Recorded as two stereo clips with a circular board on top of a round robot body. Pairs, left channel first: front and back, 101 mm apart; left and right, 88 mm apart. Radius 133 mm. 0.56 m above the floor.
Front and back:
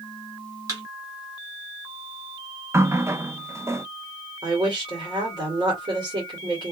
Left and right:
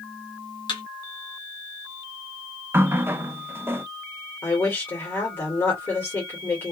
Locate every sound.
0.7 s a thud: 125° left, 1.3 m
2.7 s a running tap: 135° right, 0.6 m
4.4 s a woman speaking: 150° left, 2 m